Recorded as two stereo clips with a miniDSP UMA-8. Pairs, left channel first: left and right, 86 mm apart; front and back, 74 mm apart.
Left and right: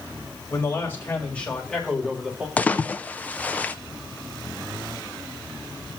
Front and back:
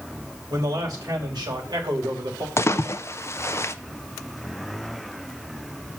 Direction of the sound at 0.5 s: 145° left.